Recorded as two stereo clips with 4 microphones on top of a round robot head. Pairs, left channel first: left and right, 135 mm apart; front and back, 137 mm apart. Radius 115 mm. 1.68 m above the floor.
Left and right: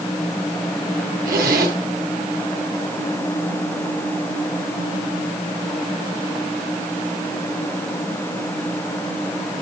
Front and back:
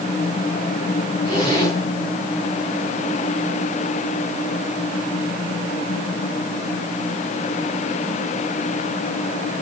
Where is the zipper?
70° right, 8 m.